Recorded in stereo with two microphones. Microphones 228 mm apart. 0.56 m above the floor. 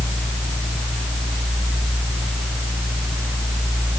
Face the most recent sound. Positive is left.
No sound to turn to.